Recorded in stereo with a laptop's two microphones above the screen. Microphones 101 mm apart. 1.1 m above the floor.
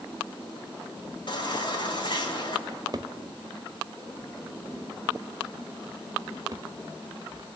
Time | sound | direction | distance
1.3 | a baby crying | 50° left (ahead or behind) | 3.5 m
2.7 | a drawer | 40° right (ahead or behind) | 1.0 m